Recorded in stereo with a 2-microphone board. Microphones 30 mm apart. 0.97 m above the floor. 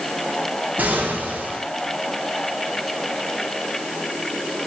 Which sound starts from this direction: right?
An explosion, at 0.8 s.